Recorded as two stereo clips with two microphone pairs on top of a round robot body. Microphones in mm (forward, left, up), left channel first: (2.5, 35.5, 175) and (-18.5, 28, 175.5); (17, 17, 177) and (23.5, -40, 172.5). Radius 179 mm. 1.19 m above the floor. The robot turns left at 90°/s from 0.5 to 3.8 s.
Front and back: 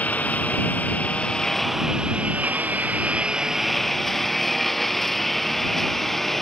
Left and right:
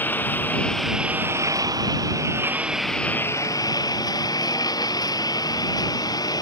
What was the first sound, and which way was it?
A lawn mower, 35° left.